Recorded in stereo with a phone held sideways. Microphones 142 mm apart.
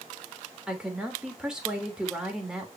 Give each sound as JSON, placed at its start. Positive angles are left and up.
{"t": 0.7, "sound": "a woman speaking", "side_deg": -5, "distance_m": 3.5}